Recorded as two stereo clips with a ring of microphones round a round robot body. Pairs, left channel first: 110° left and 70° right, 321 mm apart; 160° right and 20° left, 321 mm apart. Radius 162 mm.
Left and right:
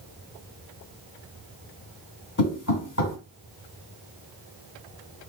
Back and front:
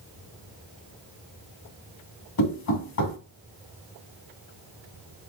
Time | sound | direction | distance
2.4 | knocking | 165° left | 2 m